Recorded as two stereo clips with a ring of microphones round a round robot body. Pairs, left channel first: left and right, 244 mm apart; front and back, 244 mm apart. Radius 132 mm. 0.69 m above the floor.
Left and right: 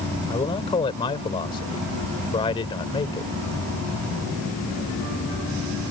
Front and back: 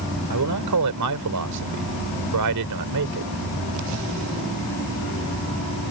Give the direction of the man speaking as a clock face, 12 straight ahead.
7 o'clock.